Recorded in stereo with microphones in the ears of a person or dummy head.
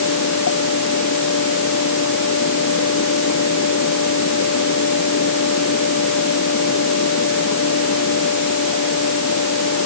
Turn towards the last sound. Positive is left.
turn(degrees=60)  # may be behind; listen again after turning